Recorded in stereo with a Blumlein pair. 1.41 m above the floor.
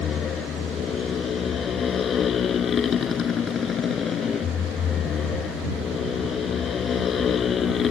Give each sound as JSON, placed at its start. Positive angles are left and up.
{"t": 0.0, "sound": "a motorcycle", "azimuth_deg": 25}